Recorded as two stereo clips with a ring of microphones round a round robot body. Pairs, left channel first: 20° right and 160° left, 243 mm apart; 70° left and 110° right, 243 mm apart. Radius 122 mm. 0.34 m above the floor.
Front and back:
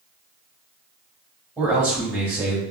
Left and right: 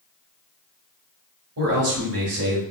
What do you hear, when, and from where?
1.6 s a man speaking: 120° right, 1.4 m